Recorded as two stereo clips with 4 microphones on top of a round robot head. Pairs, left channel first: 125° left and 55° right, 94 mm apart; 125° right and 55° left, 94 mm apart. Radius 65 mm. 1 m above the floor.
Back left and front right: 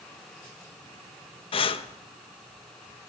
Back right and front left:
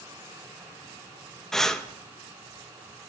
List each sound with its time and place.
1.5 s breathing: 150° left, 0.9 m